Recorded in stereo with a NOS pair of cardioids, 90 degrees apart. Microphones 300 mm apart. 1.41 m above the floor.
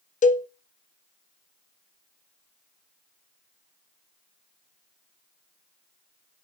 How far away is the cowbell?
About 0.5 m.